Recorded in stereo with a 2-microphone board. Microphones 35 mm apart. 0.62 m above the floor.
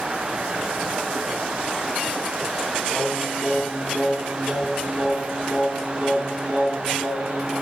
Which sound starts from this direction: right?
Singing, at 2.9 s.